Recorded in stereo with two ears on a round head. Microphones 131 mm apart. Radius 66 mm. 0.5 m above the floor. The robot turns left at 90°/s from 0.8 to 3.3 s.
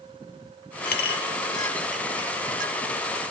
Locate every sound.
0.8 s a clink: 70° left (ahead or behind), 0.8 m; by 2.8 s 65° right (ahead or behind), 0.8 m